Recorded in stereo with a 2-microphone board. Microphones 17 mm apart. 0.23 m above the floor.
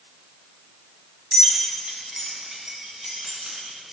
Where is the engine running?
No engine running in this recording.